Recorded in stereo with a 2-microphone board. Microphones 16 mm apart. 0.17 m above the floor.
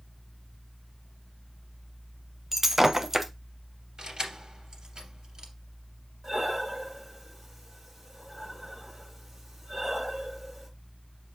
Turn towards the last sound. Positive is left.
turn(degrees=-20)  # may be behind; listen again after turning